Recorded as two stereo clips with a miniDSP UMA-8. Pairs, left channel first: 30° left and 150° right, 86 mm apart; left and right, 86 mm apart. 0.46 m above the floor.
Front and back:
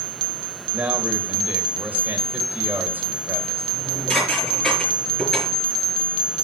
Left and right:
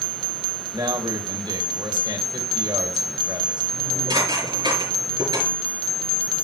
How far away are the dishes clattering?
About 5 m.